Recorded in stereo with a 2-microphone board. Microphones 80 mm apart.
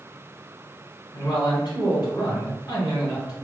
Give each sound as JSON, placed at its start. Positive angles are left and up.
{"t": 1.1, "sound": "a man speaking", "side_deg": 60, "distance_m": 1.6}